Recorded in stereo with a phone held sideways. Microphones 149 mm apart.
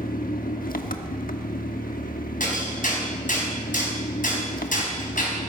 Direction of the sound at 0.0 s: 70° left (ahead or behind).